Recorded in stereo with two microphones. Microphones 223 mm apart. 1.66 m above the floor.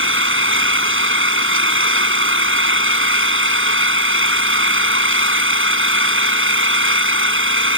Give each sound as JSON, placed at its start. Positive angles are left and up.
{"t": 0.0, "sound": "an engine running", "side_deg": -65}